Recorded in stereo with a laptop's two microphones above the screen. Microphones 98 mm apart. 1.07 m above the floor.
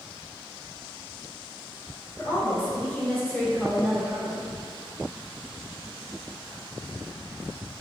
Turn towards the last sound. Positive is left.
turn(degrees=-40)  # may be behind; listen again after turning